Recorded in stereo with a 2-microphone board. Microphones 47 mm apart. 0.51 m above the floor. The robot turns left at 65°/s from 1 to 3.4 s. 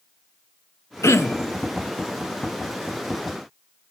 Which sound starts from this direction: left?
Throat clearing, at 1.0 s.